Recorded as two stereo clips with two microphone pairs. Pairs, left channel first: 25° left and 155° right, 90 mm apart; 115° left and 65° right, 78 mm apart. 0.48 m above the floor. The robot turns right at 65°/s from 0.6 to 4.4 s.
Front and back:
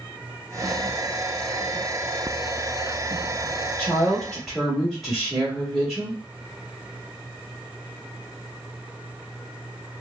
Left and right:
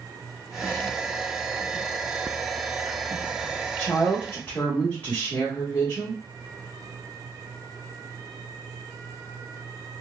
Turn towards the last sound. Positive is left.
turn(degrees=120)